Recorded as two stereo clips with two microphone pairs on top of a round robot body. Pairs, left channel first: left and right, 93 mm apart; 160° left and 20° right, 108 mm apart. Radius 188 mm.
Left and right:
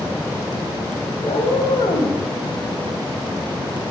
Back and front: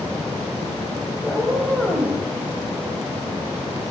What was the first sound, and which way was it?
A cat meowing, 80° left.